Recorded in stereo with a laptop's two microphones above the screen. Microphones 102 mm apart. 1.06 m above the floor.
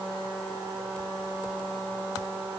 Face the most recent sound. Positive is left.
No sound to turn to.